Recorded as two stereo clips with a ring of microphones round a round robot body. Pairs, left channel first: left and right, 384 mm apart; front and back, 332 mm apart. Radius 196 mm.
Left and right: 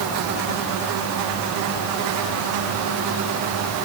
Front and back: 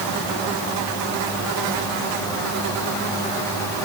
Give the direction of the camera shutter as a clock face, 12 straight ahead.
I don't hear a camera shutter.